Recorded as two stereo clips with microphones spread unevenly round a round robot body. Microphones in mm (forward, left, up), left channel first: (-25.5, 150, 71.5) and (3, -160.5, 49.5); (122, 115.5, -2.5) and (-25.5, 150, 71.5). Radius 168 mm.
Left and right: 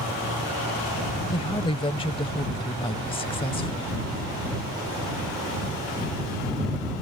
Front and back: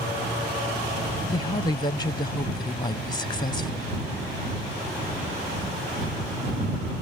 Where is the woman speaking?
20° left.